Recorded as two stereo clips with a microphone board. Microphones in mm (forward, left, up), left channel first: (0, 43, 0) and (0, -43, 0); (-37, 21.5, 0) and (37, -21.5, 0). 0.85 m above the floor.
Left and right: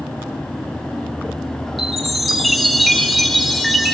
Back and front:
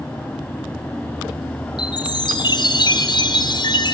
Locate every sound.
1.8 s a chime: straight behind, 4.5 m